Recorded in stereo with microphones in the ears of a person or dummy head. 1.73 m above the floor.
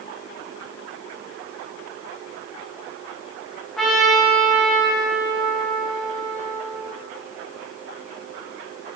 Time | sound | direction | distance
3.8 | a trumpet | centre (ahead or behind) | 2 m